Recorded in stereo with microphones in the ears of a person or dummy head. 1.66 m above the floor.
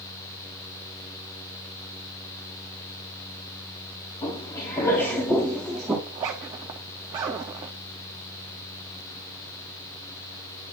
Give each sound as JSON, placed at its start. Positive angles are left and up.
{"t": 4.2, "sound": "footsteps", "side_deg": 30, "distance_m": 2.5}
{"t": 6.1, "sound": "a zipper", "side_deg": -15, "distance_m": 0.5}